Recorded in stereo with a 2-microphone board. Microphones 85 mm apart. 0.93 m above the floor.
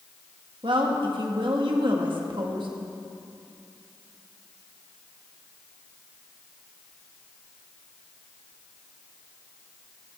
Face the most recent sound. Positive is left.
turn(degrees=-65)  # may be behind; listen again after turning